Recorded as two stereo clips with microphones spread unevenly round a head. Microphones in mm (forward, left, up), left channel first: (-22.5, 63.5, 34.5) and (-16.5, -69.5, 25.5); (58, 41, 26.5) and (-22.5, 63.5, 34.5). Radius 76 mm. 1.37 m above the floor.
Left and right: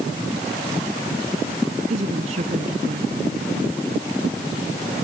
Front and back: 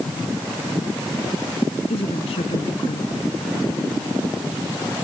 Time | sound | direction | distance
1.9 | a woman speaking | 40° right | ?